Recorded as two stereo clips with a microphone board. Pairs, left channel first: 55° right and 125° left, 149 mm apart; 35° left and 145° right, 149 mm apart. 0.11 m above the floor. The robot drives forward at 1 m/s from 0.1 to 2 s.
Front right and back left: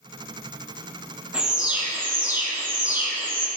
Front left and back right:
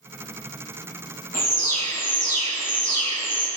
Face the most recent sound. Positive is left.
turn(degrees=50)